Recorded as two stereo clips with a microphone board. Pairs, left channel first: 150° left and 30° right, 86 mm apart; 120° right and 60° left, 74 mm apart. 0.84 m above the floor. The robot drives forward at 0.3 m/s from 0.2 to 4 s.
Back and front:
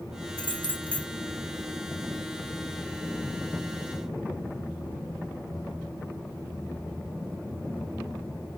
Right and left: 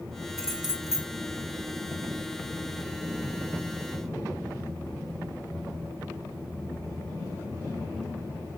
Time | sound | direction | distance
0.4 | keys jangling | 25° right | 2.5 m